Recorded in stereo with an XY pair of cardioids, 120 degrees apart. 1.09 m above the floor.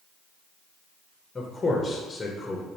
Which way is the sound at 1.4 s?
20° left.